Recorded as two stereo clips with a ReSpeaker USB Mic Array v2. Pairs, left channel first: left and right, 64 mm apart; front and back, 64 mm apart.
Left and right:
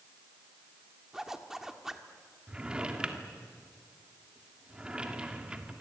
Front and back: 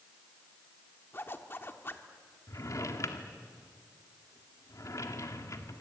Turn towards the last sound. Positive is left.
turn(degrees=-15)